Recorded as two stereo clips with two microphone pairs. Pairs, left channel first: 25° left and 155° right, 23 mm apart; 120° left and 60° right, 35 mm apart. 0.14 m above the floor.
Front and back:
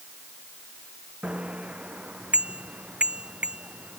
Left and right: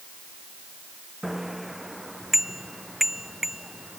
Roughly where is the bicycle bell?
Behind right.